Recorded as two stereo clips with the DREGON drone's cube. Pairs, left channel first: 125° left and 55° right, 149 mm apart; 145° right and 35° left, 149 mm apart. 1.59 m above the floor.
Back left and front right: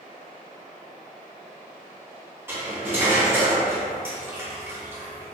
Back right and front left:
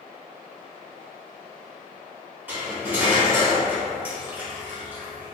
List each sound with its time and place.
2.5 s cutlery clinking: 20° right, 0.9 m